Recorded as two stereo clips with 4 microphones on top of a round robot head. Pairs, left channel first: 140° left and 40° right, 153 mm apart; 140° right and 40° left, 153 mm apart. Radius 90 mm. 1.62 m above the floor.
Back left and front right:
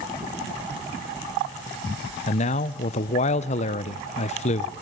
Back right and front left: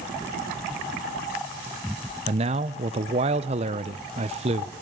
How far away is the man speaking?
About 0.9 m.